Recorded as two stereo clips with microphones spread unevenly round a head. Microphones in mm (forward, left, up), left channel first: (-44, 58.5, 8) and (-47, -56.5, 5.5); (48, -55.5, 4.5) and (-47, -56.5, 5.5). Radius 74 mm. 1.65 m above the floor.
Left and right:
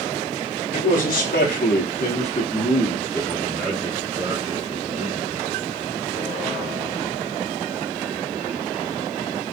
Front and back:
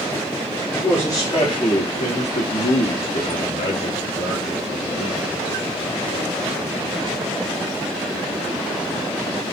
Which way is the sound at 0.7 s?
80° left.